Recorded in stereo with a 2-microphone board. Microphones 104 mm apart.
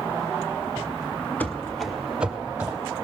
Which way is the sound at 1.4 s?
15° left (ahead or behind).